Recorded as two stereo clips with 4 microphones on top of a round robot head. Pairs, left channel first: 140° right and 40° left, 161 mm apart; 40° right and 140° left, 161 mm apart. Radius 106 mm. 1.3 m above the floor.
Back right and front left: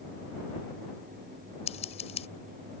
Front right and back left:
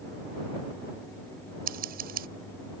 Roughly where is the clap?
No clap in this recording.